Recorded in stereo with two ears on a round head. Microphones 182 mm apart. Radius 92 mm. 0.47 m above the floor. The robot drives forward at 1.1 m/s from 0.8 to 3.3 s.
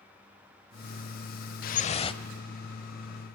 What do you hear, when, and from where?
1.6 s dripping: 50° left (ahead or behind), 0.6 m; by 2.2 s 25° left (ahead or behind), 1.2 m